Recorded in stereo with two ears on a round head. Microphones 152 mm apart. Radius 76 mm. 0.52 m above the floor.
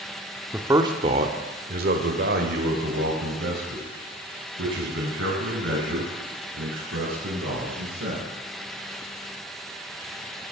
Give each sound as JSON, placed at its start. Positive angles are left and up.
{"t": 0.5, "sound": "a man speaking", "side_deg": -10, "distance_m": 1.0}